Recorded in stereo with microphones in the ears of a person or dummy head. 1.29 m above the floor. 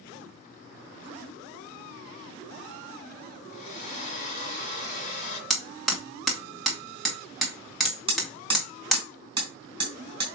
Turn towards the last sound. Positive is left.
turn(degrees=-25)  # may be behind; listen again after turning